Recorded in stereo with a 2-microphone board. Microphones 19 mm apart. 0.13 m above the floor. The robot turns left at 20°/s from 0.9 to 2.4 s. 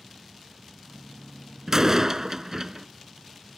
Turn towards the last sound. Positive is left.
turn(degrees=-25)  # may be behind; listen again after turning